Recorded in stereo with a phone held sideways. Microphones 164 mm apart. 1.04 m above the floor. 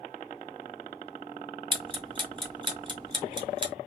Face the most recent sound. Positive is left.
turn(degrees=-30)  # may be behind; listen again after turning